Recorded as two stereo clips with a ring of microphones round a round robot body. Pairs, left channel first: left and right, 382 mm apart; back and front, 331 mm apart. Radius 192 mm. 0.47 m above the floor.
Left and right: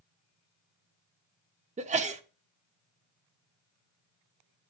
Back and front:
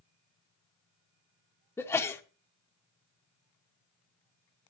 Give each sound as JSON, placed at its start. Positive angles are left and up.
{"t": 1.8, "sound": "a sneeze", "azimuth_deg": -110, "distance_m": 0.7}